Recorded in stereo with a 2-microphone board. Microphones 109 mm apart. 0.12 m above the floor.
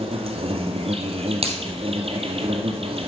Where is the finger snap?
70° right (ahead or behind), 2.5 m.